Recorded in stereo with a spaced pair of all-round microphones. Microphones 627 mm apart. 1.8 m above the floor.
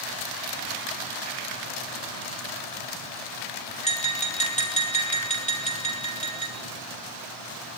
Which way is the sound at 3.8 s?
10° left (ahead or behind).